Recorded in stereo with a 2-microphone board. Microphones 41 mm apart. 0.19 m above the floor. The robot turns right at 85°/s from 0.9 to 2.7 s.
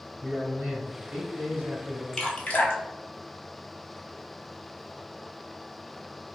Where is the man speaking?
15° right, 1.7 m; by 2.0 s 85° left, 1.7 m.